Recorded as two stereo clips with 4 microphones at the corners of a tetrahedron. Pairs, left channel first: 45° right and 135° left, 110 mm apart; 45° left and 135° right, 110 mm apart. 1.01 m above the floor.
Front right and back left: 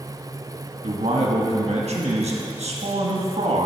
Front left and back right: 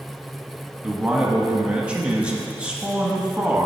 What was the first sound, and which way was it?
A man speaking, 145° left.